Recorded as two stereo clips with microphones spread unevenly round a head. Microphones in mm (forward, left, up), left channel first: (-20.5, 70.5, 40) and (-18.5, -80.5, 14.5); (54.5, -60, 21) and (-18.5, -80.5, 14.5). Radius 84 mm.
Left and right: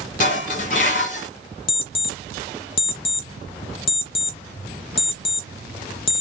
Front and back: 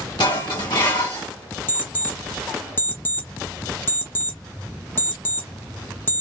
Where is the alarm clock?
70° left, 0.7 m.